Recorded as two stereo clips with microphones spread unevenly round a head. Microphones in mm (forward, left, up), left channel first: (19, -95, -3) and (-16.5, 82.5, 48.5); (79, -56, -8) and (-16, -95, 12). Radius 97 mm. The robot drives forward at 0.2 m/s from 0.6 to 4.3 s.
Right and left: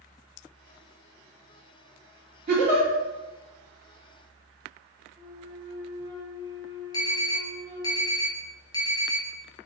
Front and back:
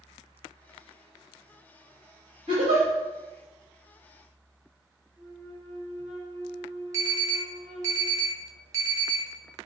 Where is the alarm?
160° right, 0.6 m.